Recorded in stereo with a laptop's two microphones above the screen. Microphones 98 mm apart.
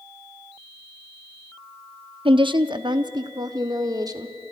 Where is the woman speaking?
60° right (ahead or behind), 1.0 m; by 4.4 s 40° right (ahead or behind), 2 m.